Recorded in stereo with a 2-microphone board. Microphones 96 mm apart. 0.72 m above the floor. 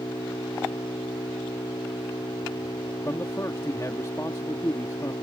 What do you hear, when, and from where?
0.0 s an engine running: 55° left (ahead or behind)
3.0 s a man speaking: 35° left (ahead or behind)